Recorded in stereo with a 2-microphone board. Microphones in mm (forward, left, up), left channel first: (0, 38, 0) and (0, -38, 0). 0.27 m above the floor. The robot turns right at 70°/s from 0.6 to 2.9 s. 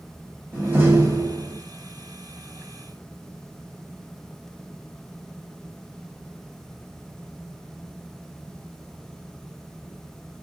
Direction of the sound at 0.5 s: 155° right.